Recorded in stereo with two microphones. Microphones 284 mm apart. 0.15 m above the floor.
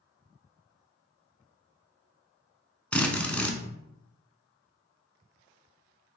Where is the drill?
5° left (ahead or behind), 0.6 m.